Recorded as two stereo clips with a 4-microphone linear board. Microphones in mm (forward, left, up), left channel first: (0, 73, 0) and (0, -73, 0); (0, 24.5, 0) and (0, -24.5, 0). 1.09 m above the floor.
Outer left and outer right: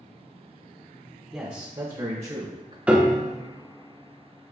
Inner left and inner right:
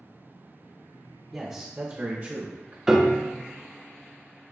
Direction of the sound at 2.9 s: 10° right (ahead or behind).